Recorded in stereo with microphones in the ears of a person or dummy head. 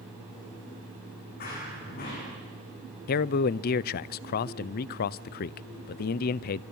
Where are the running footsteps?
45° left (ahead or behind), 7 m.